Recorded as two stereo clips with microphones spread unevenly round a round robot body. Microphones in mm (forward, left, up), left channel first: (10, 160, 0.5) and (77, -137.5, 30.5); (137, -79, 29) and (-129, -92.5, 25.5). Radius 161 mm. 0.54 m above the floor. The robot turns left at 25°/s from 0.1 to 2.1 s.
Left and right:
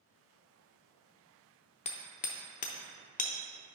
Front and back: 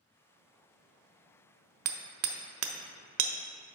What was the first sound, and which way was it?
Hammering, 165° left.